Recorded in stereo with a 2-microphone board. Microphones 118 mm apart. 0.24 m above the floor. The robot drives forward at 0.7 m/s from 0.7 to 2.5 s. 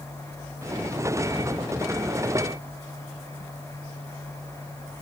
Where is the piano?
No piano in this recording.